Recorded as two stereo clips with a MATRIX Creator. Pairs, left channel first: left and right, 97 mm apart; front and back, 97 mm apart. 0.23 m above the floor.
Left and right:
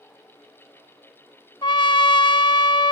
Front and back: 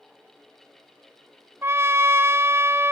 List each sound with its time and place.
1.6 s a trumpet: 115° left, 0.6 m